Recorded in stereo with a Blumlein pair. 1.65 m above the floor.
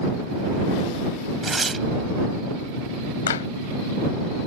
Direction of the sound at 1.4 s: 10° right.